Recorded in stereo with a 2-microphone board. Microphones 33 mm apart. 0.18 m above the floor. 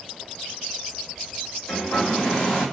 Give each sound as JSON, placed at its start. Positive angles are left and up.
{"t": 1.7, "sound": "a hair dryer", "side_deg": 20, "distance_m": 2.0}